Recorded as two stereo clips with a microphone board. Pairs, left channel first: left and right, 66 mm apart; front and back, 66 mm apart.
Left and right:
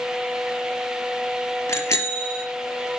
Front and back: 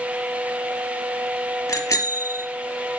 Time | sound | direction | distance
1.7 | a bicycle bell | 45° left | 3.5 m